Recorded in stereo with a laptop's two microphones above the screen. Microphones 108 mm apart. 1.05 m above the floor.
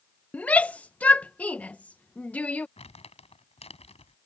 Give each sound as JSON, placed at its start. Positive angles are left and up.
{"t": 0.3, "sound": "a shout", "side_deg": 10}
{"t": 2.8, "sound": "crumpling", "side_deg": 75}